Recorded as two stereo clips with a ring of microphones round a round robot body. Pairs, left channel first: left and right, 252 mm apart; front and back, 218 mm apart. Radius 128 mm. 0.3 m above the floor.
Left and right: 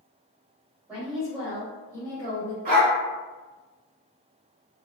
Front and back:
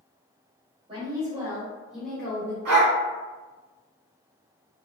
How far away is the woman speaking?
About 1.4 m.